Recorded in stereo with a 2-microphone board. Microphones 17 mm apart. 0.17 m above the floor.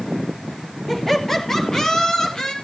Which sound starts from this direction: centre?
Laughter, at 0.9 s.